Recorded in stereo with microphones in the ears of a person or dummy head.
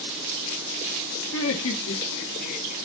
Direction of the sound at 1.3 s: 85° left.